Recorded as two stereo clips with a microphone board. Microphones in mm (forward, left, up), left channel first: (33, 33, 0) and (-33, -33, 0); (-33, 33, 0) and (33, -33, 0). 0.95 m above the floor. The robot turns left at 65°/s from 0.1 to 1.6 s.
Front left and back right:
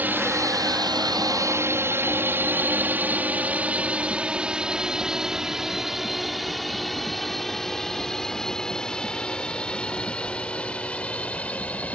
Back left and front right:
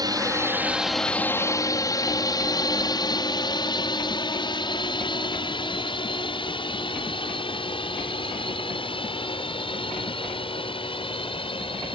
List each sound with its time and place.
0.0 s a drone: 70° right; by 11.9 s 120° left